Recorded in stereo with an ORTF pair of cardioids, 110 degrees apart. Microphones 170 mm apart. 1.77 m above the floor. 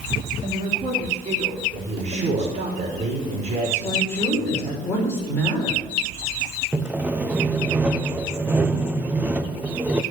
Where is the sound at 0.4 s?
40° right, 3.5 m.